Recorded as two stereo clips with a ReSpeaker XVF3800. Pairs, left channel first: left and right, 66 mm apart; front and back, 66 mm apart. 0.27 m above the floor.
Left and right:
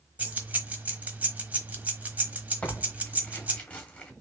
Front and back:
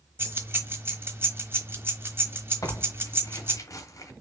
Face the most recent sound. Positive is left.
turn(degrees=25)